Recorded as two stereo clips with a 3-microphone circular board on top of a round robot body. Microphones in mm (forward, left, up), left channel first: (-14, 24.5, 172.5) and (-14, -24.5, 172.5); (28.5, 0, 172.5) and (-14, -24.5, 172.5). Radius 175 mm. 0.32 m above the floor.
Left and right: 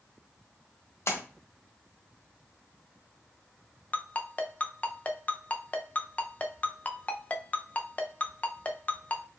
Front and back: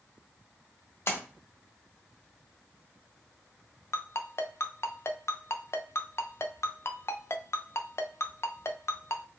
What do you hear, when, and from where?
1.1 s a splash: 65° left, 1.2 m
3.9 s a ringtone: 35° left, 0.8 m